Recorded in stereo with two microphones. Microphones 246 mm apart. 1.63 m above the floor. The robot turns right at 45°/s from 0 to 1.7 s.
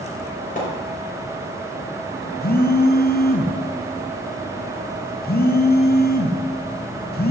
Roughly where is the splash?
Left.